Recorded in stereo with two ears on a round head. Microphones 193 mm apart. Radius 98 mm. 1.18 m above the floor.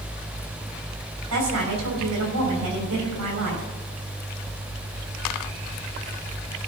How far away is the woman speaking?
About 6.5 m.